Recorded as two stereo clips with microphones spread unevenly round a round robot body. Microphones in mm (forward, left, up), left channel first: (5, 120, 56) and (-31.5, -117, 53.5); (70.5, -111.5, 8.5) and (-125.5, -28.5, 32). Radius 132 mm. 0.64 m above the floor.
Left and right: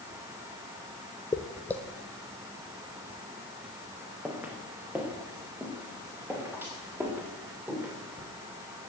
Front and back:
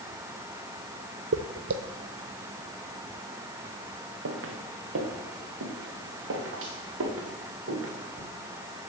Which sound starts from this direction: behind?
Footsteps, at 1.3 s.